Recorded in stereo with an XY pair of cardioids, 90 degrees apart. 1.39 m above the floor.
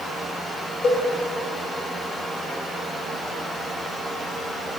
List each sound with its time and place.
0.8 s a cowbell: 60° left, 3 m